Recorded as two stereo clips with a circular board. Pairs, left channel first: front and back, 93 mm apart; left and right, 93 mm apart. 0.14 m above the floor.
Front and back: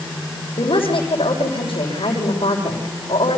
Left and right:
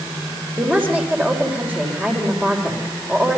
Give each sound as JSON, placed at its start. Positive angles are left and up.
{"t": 0.6, "sound": "a woman speaking", "azimuth_deg": -20, "distance_m": 8.0}